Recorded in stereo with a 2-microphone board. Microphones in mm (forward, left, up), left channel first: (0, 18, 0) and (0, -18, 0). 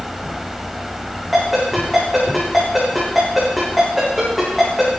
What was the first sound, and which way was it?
A ringtone, centre (ahead or behind).